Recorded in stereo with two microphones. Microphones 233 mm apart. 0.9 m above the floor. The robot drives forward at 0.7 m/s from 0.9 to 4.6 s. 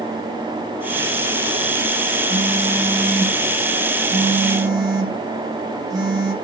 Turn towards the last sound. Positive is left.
turn(degrees=-15)  # may be behind; listen again after turning